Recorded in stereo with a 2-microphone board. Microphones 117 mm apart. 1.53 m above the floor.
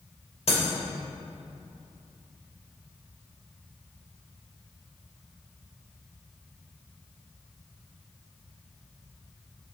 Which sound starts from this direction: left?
Breaking glass, at 0.5 s.